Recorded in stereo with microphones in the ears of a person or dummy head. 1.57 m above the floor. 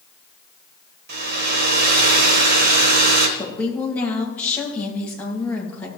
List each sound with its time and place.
1.1 s a hair dryer: 50° right (ahead or behind), 1.4 m
3.4 s a woman speaking: 5° left (ahead or behind), 2 m